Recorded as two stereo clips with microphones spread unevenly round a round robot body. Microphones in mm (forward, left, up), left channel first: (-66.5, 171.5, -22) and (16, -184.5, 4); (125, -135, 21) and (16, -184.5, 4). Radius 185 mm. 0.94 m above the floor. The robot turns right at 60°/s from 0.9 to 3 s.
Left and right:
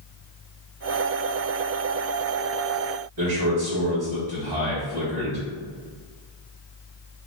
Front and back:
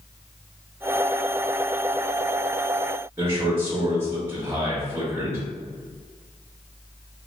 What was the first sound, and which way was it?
A man speaking, 95° right.